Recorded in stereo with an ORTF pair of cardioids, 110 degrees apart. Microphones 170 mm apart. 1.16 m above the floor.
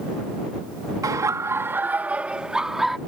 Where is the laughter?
20° right; by 3.0 s straight ahead.